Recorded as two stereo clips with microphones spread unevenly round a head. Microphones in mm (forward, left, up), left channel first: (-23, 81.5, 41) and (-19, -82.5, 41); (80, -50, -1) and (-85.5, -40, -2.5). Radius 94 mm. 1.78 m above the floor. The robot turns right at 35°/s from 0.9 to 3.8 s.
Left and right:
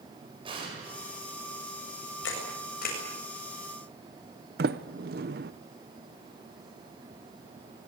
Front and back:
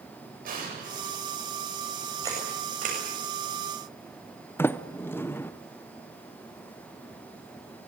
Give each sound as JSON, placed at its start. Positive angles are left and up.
{"t": 0.5, "sound": "an explosion", "azimuth_deg": -150, "distance_m": 9.0}
{"t": 2.2, "sound": "a camera shutter", "azimuth_deg": 100, "distance_m": 8.0}
{"t": 4.6, "sound": "a sliding door", "azimuth_deg": -75, "distance_m": 0.8}